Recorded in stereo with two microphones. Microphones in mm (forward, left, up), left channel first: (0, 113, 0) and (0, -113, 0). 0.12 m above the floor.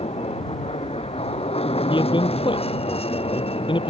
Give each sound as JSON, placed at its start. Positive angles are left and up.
{"t": 0.0, "sound": "an aircraft", "side_deg": 25}
{"t": 1.9, "sound": "a man speaking", "side_deg": 20}